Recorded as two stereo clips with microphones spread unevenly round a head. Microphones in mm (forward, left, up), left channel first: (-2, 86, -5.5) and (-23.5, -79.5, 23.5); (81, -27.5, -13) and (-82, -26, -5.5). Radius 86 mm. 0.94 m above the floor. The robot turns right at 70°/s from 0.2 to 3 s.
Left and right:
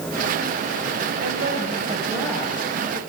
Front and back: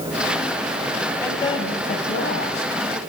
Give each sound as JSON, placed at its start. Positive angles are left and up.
{"t": 1.2, "sound": "a woman speaking", "azimuth_deg": -80, "distance_m": 4.5}